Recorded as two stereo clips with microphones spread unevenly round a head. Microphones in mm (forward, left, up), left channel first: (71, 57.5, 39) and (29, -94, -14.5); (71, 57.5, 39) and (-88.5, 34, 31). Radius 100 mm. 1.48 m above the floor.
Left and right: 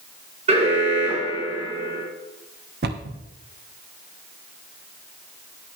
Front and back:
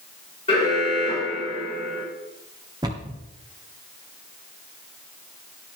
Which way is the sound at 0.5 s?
55° right.